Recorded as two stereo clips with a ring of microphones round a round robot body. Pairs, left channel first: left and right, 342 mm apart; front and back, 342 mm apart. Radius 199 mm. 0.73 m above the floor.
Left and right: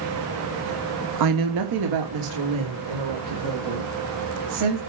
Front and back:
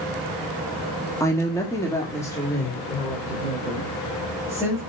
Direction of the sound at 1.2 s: 80° right.